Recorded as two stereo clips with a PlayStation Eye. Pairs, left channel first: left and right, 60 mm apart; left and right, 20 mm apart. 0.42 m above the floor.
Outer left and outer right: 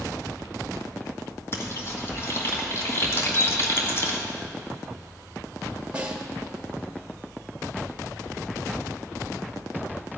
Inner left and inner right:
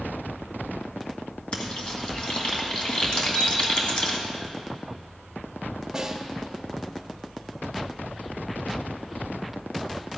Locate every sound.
1.5 s frying: 40° left (ahead or behind), 1.9 m
3.2 s a bird: 35° left (ahead or behind), 2 m
5.9 s a snare drum: 15° right (ahead or behind), 1.7 m